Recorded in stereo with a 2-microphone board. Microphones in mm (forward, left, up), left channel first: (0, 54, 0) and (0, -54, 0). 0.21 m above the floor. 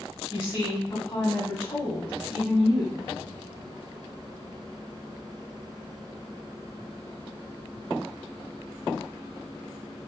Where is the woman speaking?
25° left (ahead or behind), 1.4 m.